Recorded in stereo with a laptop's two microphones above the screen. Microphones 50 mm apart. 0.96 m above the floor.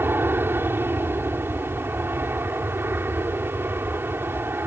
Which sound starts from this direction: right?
An aircraft, at 0.0 s.